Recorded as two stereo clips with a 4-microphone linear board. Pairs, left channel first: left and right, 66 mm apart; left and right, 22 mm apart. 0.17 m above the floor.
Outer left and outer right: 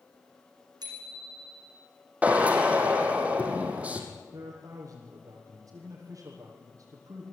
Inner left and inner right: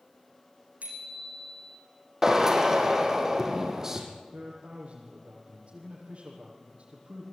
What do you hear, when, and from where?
0.8 s a bicycle bell: 80° right, 6.5 m
2.2 s a drill: 20° right (ahead or behind), 4 m
4.3 s a man speaking: 50° right (ahead or behind), 7 m